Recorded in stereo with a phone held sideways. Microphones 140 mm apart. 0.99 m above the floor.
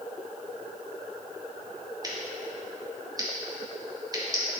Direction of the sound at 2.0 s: 30° right (ahead or behind).